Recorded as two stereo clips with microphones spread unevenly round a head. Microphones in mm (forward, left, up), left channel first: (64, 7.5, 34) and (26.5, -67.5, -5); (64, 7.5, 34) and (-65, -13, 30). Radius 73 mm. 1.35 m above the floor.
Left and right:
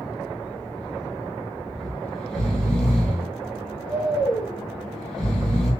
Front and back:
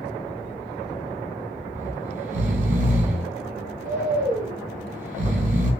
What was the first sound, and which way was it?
Snoring, 155° left.